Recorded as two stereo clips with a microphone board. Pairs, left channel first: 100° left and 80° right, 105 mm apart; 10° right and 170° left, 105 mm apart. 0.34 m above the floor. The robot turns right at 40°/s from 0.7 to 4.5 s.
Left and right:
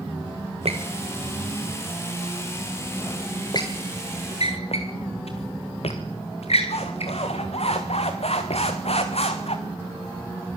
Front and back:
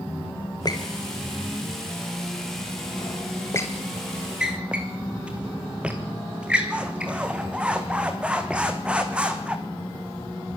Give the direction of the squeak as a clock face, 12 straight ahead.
2 o'clock.